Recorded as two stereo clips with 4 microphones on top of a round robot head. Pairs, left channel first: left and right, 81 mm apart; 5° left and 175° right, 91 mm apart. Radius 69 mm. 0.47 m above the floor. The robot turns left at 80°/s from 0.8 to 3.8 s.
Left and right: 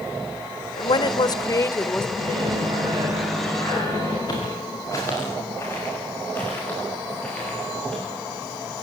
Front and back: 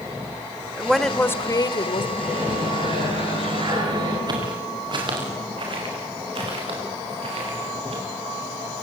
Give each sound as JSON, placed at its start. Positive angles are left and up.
{"t": 0.8, "sound": "a woman speaking", "azimuth_deg": 110, "distance_m": 1.4}
{"t": 2.2, "sound": "a microwave", "azimuth_deg": -80, "distance_m": 7.5}
{"t": 4.3, "sound": "footsteps", "azimuth_deg": 145, "distance_m": 7.5}